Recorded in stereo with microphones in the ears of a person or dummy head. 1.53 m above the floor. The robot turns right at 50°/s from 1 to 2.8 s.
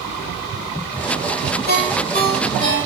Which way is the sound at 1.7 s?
70° left (ahead or behind).